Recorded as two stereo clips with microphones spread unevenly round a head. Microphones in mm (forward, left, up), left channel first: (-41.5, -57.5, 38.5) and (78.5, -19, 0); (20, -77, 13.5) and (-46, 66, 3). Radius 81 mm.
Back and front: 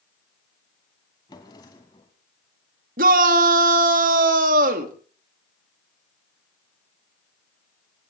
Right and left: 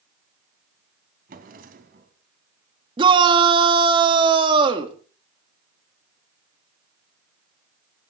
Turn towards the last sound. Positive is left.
turn(degrees=50)